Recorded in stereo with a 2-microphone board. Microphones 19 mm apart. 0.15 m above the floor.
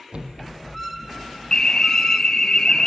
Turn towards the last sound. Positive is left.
turn(degrees=45)  # may be behind; listen again after turning